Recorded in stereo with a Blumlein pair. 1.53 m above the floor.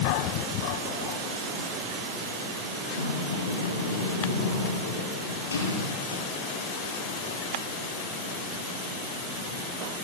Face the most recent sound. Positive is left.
turn(degrees=70)